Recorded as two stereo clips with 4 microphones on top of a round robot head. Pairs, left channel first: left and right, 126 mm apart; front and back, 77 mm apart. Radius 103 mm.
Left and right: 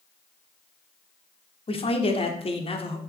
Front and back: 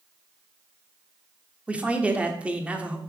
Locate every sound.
1.7 s a man speaking: 110° left, 1.2 m